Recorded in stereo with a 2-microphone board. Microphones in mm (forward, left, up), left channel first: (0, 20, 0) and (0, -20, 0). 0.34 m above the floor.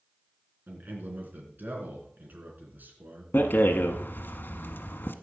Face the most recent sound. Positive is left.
turn(degrees=60)  # may be behind; listen again after turning